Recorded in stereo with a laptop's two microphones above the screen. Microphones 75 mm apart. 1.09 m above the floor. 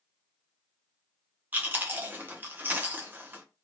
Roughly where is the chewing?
Right.